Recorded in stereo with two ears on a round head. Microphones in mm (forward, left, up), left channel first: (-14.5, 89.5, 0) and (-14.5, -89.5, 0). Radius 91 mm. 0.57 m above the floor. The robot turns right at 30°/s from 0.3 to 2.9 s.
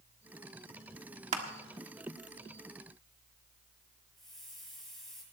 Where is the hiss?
Centre (ahead or behind), 8 m.